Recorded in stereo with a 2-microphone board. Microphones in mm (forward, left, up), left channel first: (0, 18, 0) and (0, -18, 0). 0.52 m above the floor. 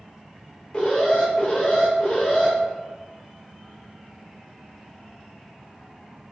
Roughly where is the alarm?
Left.